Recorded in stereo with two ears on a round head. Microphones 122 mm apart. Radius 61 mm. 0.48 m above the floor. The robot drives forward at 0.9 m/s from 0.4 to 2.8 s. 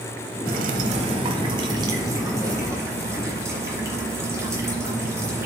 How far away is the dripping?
About 0.9 m.